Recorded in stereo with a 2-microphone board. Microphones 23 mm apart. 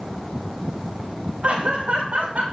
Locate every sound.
1.4 s laughter: 60° right (ahead or behind), 8 m